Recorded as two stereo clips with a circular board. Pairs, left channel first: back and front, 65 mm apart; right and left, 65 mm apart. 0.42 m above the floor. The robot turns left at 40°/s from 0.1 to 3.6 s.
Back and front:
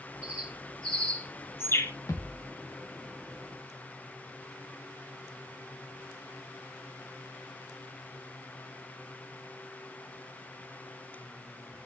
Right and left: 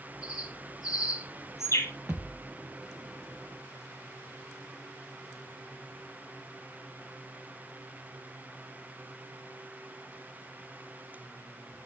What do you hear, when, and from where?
0.2 s a bird: 75° right, 4.5 m; by 1.9 s 140° right, 4.5 m
2.1 s a thud: 150° left, 4.5 m; by 2.5 s 130° left, 4.5 m